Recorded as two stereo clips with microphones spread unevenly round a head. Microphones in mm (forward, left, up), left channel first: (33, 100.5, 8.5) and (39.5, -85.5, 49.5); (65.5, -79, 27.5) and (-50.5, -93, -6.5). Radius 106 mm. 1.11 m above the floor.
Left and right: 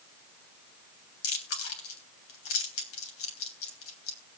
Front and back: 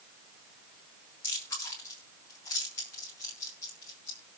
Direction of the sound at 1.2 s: 85° left.